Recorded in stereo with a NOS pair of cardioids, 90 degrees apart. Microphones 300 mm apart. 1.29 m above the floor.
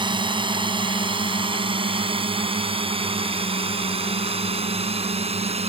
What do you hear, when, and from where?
0.0 s a drone: 15° right; by 5.7 s 20° right